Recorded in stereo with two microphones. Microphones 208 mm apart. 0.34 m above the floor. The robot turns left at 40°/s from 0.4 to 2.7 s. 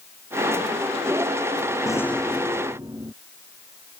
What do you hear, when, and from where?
1.9 s a rattle: 15° left; by 3.1 s 20° right